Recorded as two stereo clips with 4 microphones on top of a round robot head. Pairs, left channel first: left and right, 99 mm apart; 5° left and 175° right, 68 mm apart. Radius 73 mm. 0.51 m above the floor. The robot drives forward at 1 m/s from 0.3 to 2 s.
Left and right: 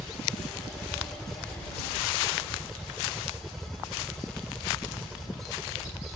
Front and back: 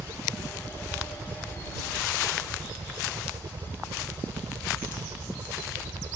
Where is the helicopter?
175° right.